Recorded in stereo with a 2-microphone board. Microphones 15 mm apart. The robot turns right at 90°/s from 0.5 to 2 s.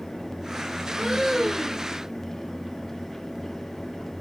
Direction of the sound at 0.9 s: 95° right.